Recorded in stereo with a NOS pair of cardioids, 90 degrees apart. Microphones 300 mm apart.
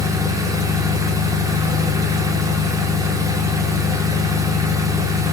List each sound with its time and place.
0.0 s an engine running: 10° right, 4 m